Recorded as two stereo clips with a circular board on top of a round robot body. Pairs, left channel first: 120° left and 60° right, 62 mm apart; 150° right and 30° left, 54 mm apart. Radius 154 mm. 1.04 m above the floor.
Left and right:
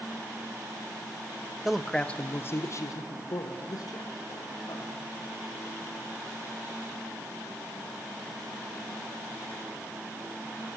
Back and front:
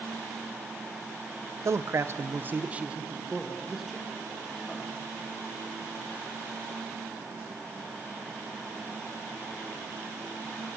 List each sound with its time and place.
1.6 s a man speaking: 20° left, 1.2 m; by 5.1 s 125° left, 3.5 m